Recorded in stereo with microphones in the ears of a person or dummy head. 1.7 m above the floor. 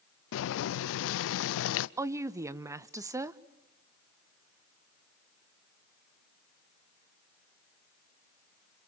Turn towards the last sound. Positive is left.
turn(degrees=-20)  # may be behind; listen again after turning